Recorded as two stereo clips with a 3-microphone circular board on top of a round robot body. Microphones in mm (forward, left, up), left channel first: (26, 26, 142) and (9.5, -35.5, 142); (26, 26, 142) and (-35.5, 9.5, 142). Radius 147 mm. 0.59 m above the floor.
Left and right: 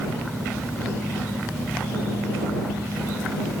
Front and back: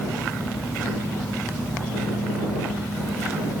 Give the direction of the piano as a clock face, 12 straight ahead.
No piano in this recording.